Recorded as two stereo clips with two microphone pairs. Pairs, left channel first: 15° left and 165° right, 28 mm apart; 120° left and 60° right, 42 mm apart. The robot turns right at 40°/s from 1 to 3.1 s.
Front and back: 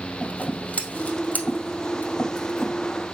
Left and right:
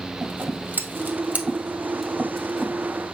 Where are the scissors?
15° right, 1.9 m; by 2.7 s 55° left, 1.9 m.